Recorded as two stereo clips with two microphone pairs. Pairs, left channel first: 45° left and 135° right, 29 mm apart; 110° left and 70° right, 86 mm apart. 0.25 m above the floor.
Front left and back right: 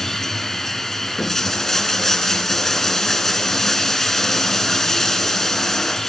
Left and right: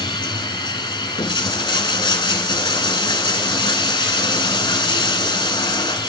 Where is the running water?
120° left, 0.9 m.